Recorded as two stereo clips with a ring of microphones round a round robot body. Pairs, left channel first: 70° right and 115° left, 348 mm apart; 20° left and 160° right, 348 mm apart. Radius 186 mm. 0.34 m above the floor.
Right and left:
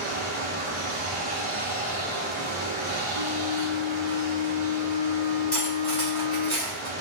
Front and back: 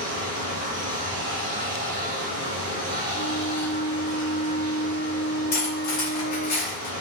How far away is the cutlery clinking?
About 1.5 m.